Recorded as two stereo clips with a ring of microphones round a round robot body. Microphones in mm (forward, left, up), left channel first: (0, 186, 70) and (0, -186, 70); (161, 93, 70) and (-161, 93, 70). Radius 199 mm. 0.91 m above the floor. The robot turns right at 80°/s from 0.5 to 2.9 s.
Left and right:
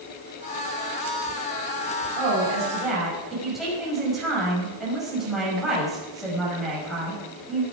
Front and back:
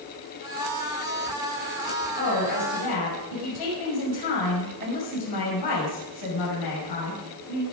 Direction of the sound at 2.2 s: 60° right.